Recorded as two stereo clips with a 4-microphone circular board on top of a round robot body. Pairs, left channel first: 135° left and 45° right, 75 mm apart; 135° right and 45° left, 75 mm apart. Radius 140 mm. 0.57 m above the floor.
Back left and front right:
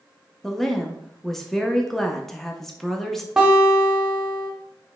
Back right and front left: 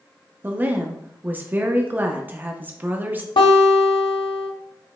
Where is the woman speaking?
55° left, 0.7 m.